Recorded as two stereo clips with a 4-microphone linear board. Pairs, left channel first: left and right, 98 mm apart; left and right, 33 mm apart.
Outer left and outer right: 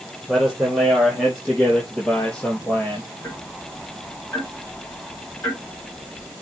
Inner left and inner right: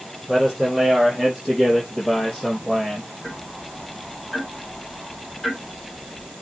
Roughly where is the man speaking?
Centre.